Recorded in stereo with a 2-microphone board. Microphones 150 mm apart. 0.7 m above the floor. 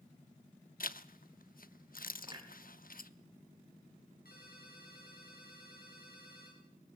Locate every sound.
0.8 s a zipper: 70° left (ahead or behind), 0.8 m
2.3 s a clunk: 30° right (ahead or behind), 3.5 m
4.2 s a ringtone: 85° left, 9 m